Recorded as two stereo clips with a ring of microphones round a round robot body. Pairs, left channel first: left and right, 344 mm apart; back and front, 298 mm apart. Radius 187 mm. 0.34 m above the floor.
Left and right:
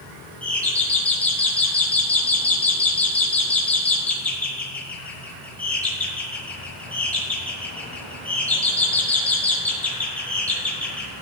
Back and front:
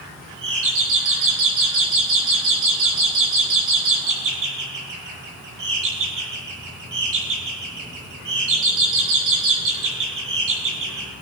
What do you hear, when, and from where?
0.4 s a doorbell: 5° left, 6 m